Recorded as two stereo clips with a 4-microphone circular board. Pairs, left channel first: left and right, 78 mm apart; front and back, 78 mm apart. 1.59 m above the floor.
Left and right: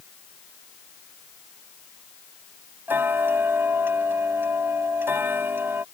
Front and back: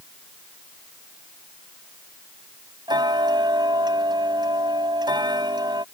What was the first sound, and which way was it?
Ticking, 150° right.